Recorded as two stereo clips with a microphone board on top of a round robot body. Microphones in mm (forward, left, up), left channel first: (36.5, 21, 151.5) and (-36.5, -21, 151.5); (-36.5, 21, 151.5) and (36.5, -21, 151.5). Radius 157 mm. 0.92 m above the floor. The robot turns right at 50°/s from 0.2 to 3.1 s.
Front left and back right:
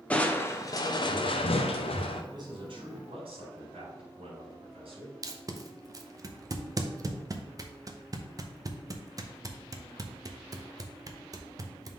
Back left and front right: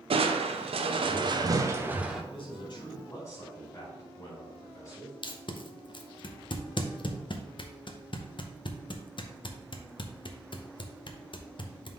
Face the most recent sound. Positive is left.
turn(degrees=165)